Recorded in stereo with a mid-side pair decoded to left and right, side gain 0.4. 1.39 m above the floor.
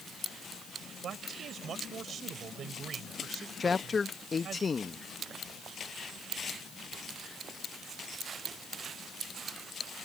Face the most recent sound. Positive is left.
turn(degrees=40)